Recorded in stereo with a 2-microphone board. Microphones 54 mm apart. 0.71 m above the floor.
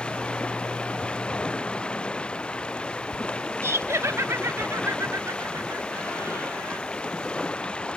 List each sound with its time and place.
0.0 s running water: 20° left (ahead or behind)
3.6 s laughter: 60° right (ahead or behind)